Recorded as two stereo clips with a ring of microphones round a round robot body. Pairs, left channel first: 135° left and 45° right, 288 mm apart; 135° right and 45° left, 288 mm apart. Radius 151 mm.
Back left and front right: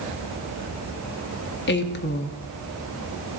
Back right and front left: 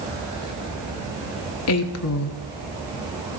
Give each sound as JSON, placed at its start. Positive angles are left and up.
{"t": 1.7, "sound": "a woman speaking", "azimuth_deg": -170, "distance_m": 1.1}